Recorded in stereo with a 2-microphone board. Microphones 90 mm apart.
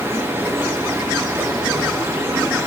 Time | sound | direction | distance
0.0 | running water | 35° right (ahead or behind) | 3.5 m